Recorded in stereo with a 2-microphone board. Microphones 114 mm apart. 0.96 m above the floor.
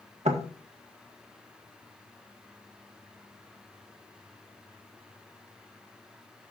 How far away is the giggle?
No giggle in this recording.